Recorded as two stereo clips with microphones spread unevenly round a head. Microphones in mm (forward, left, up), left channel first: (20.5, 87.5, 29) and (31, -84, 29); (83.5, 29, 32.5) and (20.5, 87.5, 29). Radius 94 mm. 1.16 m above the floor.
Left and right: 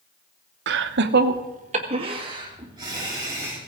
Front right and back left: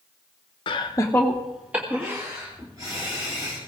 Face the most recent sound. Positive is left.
turn(degrees=-160)